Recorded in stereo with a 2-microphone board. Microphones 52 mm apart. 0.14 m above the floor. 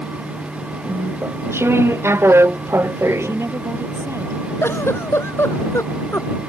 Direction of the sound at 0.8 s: 55° right (ahead or behind).